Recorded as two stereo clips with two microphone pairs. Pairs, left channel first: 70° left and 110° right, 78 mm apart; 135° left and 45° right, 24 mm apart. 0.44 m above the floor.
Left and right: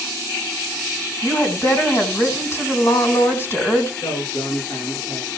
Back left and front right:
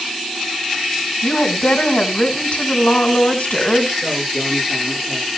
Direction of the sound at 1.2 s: 125° left.